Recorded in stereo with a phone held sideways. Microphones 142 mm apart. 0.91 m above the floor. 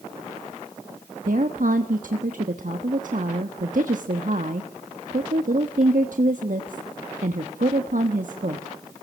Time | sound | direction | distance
1.2 | a woman speaking | 70° right (ahead or behind) | 1.3 m